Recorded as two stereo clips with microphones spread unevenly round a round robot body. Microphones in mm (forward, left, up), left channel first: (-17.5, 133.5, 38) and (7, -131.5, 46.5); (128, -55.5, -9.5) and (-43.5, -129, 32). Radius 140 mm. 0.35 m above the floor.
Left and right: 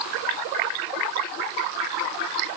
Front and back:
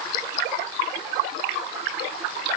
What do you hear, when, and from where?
Only background noise.